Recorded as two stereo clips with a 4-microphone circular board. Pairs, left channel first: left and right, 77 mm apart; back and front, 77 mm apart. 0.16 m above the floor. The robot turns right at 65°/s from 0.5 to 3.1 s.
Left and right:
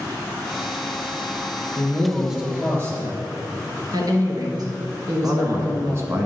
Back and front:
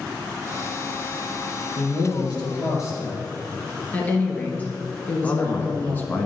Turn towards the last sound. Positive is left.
turn(degrees=-125)